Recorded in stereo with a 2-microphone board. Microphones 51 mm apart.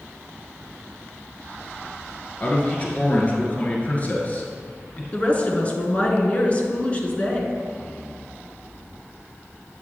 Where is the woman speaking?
30° left (ahead or behind), 1.6 m.